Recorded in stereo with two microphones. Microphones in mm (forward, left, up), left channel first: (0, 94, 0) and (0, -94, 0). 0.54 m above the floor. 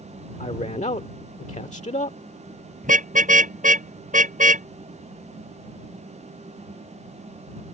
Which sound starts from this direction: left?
A man speaking, at 0.4 s.